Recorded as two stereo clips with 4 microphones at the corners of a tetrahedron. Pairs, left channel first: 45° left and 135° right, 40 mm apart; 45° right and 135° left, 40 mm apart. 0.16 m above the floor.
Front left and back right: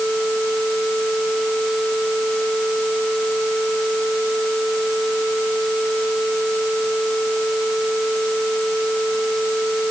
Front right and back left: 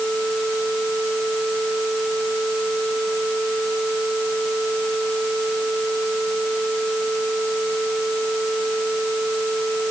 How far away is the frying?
I don't hear frying.